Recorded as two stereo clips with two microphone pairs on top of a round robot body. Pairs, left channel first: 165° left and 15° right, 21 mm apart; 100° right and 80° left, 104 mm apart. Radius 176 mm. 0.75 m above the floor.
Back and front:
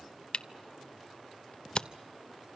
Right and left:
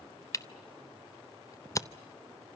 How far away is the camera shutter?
About 0.8 m.